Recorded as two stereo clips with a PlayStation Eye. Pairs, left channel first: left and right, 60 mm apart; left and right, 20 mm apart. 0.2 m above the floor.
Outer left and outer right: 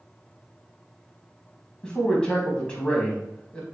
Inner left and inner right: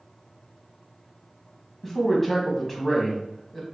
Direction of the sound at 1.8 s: 15° left (ahead or behind).